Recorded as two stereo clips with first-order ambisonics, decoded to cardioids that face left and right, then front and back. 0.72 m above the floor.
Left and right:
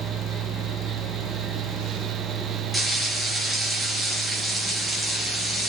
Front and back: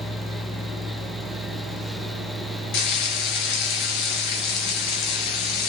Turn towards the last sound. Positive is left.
turn(degrees=0)